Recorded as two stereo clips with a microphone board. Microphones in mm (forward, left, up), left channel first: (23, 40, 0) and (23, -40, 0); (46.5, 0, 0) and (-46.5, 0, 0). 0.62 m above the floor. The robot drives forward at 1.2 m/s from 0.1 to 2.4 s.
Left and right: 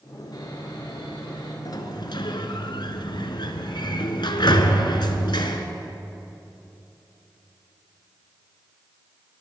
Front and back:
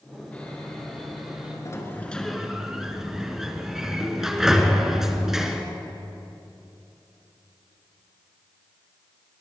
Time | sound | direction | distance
0.3 | sawing | 70° left | 3 m
1.6 | a sliding door | 55° left | 1.4 m